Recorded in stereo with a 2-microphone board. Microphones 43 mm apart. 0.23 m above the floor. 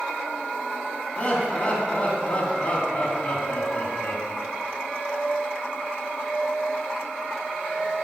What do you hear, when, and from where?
1.2 s laughter: 30° left (ahead or behind), 2 m